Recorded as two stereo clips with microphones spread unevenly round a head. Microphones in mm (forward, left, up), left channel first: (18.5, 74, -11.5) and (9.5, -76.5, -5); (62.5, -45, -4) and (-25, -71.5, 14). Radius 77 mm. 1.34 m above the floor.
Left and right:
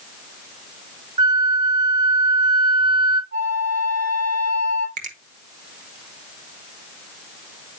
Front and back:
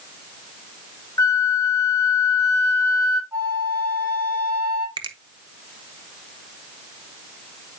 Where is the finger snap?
135° right, 1.1 m.